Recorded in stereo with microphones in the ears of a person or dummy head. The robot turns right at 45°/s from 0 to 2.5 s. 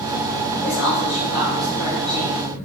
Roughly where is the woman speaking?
Left.